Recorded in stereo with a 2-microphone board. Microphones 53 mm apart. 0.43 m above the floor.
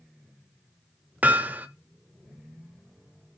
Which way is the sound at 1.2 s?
35° right (ahead or behind).